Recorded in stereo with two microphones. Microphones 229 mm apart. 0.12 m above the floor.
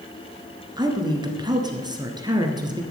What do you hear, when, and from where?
0.8 s a woman speaking: 20° right (ahead or behind), 1.6 m